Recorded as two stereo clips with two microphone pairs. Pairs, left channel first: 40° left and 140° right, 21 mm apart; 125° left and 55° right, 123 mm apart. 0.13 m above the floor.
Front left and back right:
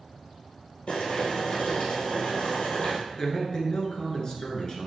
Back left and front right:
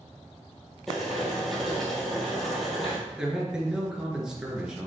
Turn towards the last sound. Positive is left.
turn(degrees=25)